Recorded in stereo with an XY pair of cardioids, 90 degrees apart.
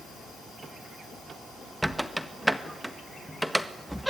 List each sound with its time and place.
1.8 s a squeak: 5° right, 1.5 m